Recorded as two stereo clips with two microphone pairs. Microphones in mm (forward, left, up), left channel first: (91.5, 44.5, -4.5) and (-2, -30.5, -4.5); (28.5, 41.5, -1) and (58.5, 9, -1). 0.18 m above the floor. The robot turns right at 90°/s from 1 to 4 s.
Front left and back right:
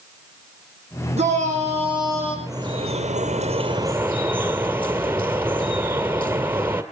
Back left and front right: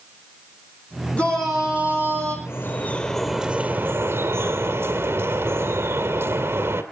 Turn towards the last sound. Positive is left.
turn(degrees=-65)